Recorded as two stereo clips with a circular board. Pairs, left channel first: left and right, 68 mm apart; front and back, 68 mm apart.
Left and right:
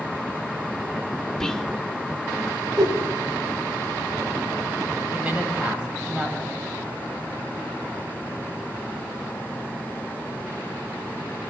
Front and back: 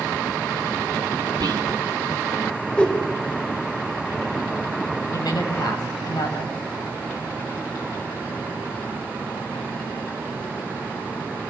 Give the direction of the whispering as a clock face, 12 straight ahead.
6 o'clock.